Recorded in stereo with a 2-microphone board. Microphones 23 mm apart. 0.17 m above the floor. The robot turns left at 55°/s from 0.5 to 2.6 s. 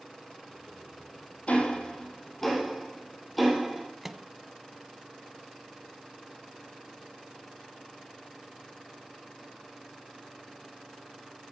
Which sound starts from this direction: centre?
A microwave, at 4.0 s.